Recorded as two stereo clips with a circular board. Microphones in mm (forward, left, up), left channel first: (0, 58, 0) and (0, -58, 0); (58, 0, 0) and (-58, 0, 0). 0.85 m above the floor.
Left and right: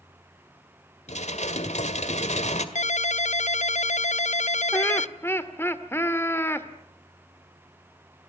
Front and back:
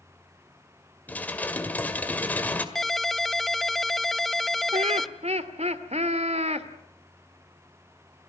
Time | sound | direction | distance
1.1 | dishes clattering | 75° left | 1.9 m
2.8 | a ringtone | 90° left | 0.5 m
4.7 | laughter | 160° left | 2 m